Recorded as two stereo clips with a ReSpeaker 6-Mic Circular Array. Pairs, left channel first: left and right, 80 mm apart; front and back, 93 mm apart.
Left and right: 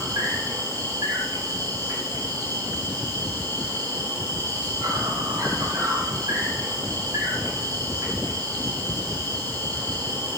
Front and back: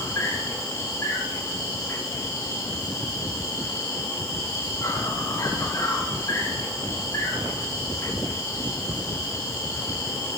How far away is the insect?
About 8.5 m.